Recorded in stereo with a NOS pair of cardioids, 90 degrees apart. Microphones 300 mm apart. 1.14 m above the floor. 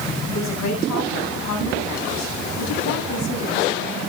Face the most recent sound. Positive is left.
turn(degrees=65)